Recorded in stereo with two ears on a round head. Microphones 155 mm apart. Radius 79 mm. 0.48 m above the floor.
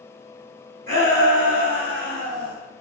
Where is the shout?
40° right (ahead or behind), 4 m; by 2.5 s 70° right (ahead or behind), 4.5 m.